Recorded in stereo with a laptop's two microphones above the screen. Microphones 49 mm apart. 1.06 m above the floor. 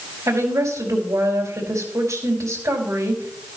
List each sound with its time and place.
0.3 s a woman speaking: 80° right, 4 m